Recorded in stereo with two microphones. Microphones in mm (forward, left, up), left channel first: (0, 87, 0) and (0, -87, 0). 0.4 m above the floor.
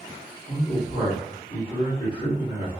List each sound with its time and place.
0.5 s a man speaking: 25° left (ahead or behind), 1.1 m